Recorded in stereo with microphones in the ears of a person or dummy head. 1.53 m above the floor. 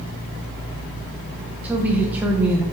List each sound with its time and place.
1.6 s a woman speaking: 10° right (ahead or behind), 1.3 m